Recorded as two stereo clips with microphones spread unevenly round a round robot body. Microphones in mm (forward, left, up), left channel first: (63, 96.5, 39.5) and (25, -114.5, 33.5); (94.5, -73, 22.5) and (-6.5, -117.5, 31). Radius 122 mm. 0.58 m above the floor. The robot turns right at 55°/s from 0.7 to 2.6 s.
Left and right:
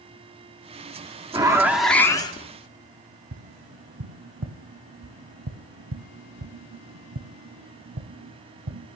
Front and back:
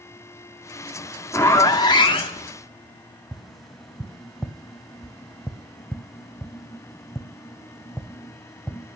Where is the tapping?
65° right, 1.0 m.